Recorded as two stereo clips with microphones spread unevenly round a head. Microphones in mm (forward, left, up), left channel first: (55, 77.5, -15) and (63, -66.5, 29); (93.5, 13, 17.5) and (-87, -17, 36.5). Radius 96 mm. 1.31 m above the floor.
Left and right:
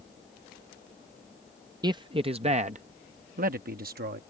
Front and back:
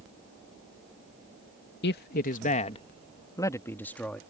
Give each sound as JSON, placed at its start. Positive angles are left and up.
{"t": 1.8, "sound": "a man speaking", "azimuth_deg": -25}